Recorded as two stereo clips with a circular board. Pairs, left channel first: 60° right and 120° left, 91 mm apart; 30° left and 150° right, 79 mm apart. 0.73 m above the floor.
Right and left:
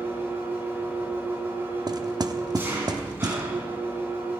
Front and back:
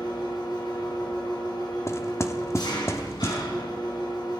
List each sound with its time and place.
0.0 s an engine running: 55° left, 3.5 m
1.9 s knocking: 80° left, 1.0 m